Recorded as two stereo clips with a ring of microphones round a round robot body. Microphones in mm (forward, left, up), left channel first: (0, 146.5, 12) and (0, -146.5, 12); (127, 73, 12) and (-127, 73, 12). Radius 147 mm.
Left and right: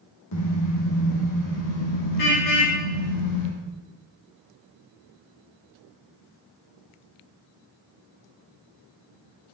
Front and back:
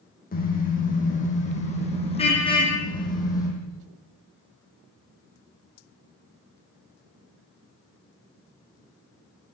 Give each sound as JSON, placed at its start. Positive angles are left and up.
{"t": 0.3, "sound": "a car horn", "azimuth_deg": 55, "distance_m": 9.5}